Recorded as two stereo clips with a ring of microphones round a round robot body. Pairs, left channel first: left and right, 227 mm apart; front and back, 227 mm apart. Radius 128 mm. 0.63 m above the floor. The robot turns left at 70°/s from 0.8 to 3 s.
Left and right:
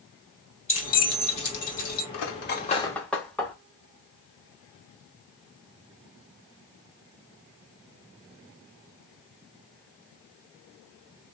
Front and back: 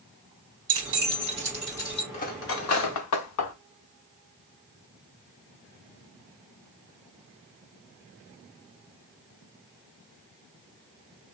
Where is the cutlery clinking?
65° left, 0.8 m; by 3.5 s 5° left, 0.8 m.